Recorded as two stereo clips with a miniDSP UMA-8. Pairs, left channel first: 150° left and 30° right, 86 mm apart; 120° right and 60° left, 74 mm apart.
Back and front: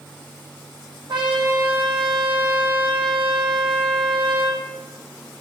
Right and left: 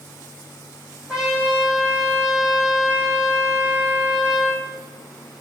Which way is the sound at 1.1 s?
20° right.